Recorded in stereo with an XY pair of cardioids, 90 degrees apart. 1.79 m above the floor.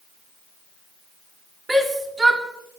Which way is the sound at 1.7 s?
30° right.